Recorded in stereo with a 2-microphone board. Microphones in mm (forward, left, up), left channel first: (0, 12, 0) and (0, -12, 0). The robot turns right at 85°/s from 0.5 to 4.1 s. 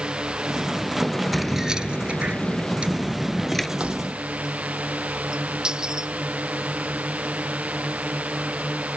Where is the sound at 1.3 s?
Straight behind; by 3.7 s 20° left.